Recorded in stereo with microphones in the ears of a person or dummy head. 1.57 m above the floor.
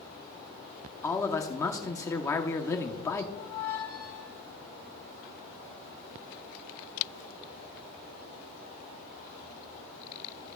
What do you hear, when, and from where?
1.0 s a man speaking: 20° left (ahead or behind), 0.8 m
3.4 s a squeak: 25° left (ahead or behind), 1.3 m